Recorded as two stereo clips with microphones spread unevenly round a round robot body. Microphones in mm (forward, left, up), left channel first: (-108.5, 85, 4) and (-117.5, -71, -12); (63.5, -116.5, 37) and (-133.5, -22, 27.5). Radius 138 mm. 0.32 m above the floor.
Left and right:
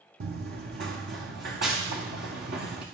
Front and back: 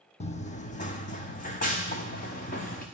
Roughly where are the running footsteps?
Right.